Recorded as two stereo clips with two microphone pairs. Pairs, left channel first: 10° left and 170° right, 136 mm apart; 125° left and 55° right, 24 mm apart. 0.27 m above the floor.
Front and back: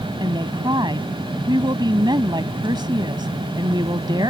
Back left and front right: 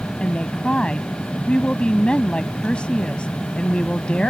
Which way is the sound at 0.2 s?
145° left.